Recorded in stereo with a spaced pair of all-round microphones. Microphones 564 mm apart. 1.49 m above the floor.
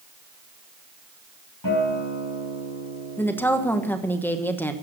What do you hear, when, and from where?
1.6 s a guitar: 35° left (ahead or behind), 4.5 m
3.2 s a woman speaking: 5° left (ahead or behind), 1.2 m